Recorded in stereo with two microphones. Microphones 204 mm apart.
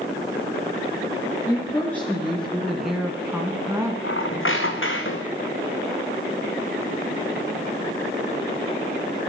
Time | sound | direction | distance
1.5 | a woman speaking | 10° left (ahead or behind) | 3 m
4.0 | a squeak | 80° left | 1.8 m